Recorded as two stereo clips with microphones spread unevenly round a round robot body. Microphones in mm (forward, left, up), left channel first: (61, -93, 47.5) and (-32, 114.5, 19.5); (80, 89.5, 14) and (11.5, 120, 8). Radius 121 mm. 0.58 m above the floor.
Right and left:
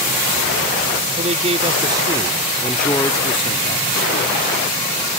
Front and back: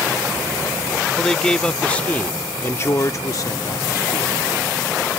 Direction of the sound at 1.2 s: 60° left.